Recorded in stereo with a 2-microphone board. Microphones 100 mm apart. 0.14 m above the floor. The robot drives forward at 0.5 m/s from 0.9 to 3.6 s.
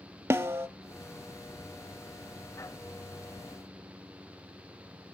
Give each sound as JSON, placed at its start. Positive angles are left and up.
{"t": 0.3, "sound": "a snare drum", "side_deg": -30, "distance_m": 0.5}